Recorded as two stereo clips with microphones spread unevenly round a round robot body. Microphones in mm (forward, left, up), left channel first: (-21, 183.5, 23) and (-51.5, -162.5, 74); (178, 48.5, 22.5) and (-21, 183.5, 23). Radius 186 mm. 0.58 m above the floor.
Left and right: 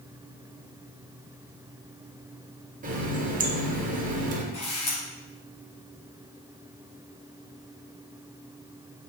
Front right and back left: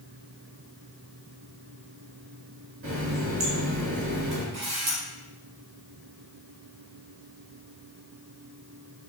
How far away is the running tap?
About 1.2 m.